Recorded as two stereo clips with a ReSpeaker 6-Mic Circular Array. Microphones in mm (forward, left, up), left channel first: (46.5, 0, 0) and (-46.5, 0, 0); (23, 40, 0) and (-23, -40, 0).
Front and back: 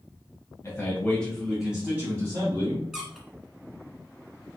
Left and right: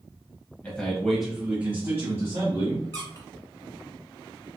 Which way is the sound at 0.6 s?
5° right.